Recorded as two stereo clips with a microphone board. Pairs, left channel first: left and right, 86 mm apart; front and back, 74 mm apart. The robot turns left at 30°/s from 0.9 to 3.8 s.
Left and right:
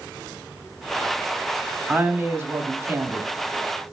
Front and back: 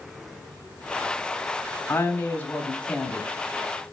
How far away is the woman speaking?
About 0.9 m.